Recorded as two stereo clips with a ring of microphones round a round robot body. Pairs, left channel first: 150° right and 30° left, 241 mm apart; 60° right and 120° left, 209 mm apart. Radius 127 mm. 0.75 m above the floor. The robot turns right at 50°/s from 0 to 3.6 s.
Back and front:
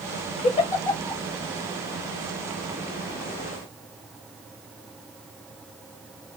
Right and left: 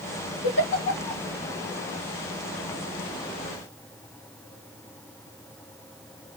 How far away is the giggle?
About 2.5 m.